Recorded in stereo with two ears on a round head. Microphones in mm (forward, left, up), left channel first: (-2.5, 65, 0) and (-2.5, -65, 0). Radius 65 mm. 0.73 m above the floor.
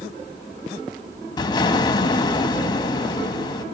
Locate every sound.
1.4 s an explosion: 30° left (ahead or behind), 1.3 m